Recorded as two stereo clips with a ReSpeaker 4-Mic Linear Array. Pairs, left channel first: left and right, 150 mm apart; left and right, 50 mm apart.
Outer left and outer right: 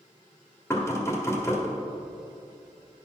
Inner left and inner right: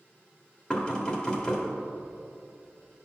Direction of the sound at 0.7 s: 20° left (ahead or behind).